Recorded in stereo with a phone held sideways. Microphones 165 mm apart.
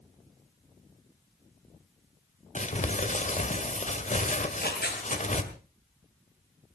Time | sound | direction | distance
2.5 | crumpling | 45° left (ahead or behind) | 1.9 m
4.4 | tearing paper | 80° left | 5.5 m